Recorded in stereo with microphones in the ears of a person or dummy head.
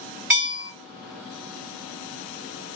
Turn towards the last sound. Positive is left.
turn(degrees=-5)  # may be behind; listen again after turning